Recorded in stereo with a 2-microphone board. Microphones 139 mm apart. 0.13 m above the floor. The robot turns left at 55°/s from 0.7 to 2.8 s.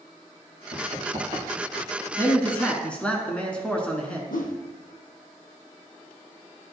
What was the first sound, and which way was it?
Running footsteps, 65° right (ahead or behind).